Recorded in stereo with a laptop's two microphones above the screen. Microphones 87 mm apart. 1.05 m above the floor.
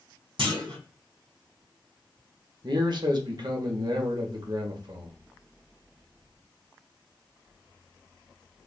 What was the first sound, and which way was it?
A clunk, 70° right (ahead or behind).